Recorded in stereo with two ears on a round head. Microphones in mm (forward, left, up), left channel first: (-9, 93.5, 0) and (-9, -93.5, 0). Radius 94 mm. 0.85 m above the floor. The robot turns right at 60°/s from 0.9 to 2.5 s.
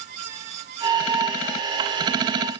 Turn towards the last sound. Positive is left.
No sound to turn to.